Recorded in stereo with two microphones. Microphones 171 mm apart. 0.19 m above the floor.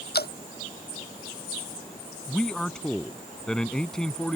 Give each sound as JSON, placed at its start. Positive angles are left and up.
{"t": 0.1, "sound": "dripping", "side_deg": 80}
{"t": 2.3, "sound": "a man speaking", "side_deg": 5}